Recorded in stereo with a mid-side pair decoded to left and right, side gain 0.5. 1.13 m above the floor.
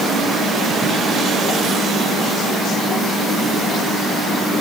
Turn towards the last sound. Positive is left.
No sound to turn to.